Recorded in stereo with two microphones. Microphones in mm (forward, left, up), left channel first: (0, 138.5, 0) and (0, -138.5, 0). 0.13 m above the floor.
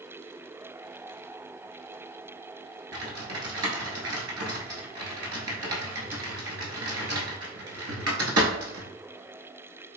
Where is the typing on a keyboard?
60° right (ahead or behind), 0.9 m.